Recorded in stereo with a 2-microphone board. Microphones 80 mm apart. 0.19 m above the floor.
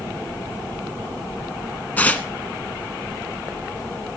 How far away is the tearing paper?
About 1.2 m.